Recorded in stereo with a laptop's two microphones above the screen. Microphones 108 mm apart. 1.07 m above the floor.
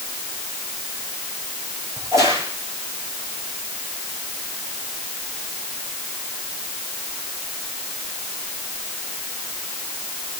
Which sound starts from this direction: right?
A crack, at 2.0 s.